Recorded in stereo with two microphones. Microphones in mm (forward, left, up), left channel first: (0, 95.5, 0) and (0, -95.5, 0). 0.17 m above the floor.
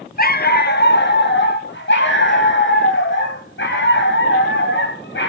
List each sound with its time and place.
0.2 s a dog barking: 55° left (ahead or behind), 1.1 m; by 5.3 s 80° left, 5.5 m